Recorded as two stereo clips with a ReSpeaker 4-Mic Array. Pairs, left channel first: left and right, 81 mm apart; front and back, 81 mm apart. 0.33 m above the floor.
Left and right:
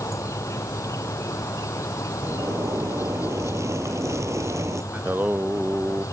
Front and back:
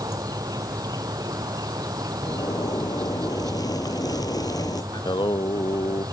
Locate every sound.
0.0 s an insect: 140° left
2.2 s a zipper: 40° right
4.9 s singing: 25° right